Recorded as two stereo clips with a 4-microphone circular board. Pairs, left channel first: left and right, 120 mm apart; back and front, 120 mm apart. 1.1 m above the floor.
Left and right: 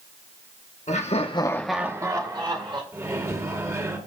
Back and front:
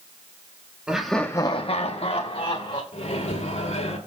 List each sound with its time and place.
0.9 s laughter: 80° left, 1.1 m; by 2.8 s 135° right, 2 m
2.9 s a microwave: 155° right, 2.5 m